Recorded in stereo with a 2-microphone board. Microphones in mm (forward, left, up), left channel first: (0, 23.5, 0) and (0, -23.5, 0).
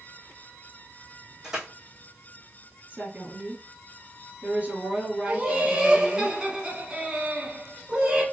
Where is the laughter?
20° right (ahead or behind), 1.1 m.